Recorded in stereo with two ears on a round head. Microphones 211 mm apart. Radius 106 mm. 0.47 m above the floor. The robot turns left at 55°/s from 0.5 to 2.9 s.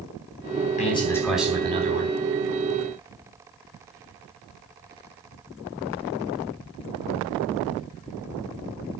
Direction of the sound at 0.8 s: 30° left.